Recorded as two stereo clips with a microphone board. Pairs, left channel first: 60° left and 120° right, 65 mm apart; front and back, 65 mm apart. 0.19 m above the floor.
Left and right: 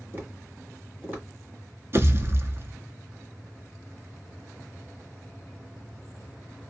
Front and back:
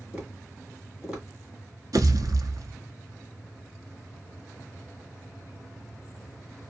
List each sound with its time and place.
0.1 s tapping: 120° right, 1.8 m
1.9 s a pop: 165° right, 0.6 m